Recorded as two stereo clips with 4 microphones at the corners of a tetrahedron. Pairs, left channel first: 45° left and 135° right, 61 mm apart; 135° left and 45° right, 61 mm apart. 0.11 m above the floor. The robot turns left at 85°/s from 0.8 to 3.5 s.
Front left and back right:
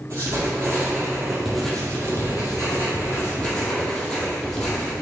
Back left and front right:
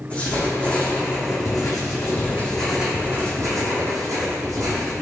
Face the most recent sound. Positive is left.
turn(degrees=-25)